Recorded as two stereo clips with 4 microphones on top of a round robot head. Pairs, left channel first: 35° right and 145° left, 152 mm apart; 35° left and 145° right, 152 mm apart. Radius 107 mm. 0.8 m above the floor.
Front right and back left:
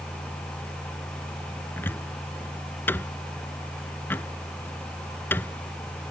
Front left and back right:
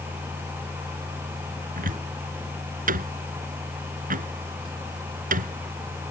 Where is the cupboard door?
110° right.